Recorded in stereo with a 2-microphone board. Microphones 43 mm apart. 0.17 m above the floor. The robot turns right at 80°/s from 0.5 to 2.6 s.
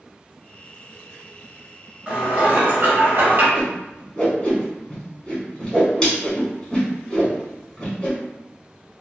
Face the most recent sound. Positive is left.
turn(degrees=15)  # may be behind; listen again after turning